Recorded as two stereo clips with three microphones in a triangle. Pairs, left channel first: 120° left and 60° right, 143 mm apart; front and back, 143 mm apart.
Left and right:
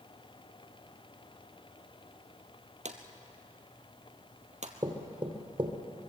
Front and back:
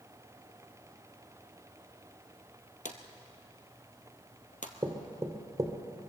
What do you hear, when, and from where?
2.9 s a drawer: 25° right, 1.7 m
4.8 s knocking: 115° right, 2.5 m